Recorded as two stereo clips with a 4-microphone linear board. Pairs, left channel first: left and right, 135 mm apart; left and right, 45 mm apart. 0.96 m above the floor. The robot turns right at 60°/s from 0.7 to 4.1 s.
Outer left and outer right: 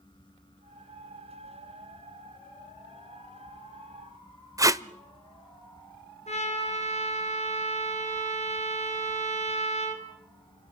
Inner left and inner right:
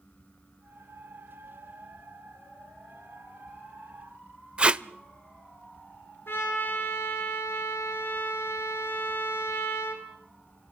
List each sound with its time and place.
4.6 s tape being pulled: 25° right (ahead or behind), 0.7 m
6.3 s a trumpet: 55° left (ahead or behind), 4.5 m